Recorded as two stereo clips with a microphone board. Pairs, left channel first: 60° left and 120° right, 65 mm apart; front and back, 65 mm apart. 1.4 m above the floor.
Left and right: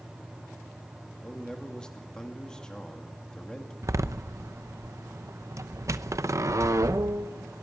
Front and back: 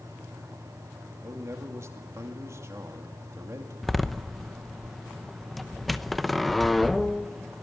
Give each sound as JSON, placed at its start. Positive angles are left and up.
{"t": 1.2, "sound": "a man speaking", "azimuth_deg": 140, "distance_m": 2.5}
{"t": 3.8, "sound": "a door slam", "azimuth_deg": -90, "distance_m": 0.8}